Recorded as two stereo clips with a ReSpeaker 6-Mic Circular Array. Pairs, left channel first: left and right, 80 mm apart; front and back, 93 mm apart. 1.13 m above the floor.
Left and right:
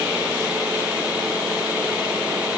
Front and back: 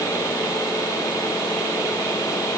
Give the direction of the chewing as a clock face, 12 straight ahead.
No chewing in this recording.